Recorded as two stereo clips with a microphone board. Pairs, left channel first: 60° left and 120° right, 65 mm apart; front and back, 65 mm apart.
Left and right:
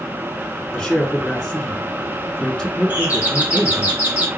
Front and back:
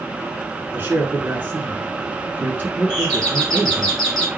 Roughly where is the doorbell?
Right.